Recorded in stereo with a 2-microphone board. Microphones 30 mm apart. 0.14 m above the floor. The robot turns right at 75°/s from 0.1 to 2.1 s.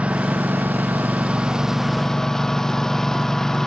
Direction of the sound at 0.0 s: 135° right.